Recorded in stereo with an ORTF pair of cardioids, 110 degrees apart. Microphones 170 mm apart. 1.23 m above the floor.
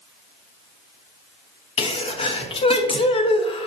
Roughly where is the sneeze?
Ahead left.